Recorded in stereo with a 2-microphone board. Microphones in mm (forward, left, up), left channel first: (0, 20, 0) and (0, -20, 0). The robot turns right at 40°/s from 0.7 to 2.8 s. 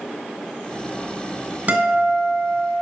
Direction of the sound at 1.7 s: 140° right.